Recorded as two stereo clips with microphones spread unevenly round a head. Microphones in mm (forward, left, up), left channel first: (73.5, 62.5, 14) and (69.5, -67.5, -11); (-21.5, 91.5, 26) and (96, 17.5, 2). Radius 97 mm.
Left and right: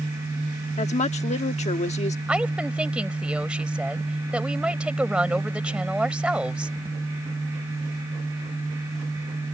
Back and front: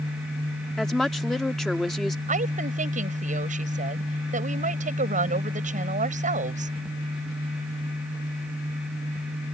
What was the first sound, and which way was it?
A woman speaking, 60° left.